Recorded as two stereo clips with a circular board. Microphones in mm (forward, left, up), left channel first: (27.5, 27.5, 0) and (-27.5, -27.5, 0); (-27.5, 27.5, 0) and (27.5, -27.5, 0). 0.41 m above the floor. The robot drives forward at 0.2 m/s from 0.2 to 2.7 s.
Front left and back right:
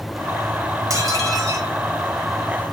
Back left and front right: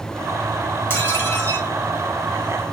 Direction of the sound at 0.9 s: 170° right.